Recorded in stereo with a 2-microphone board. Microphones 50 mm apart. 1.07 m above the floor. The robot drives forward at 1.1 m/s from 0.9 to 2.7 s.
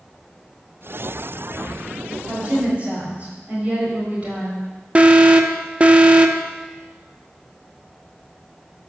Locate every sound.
2.3 s a woman speaking: 25° right (ahead or behind), 5 m
5.0 s an alarm: 25° right (ahead or behind), 0.7 m